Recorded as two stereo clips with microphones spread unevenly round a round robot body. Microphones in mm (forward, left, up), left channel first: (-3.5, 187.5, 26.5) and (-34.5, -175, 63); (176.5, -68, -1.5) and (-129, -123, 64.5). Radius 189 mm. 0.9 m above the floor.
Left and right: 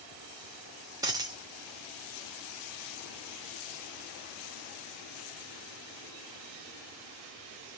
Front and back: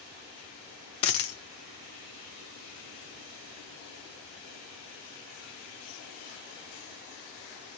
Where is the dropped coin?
25° right, 0.6 m.